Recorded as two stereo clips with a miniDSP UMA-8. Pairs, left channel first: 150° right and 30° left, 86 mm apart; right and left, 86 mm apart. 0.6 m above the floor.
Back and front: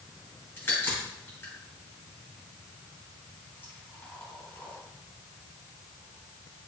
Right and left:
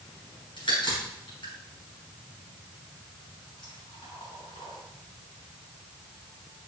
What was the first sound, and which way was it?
A crack, 85° right.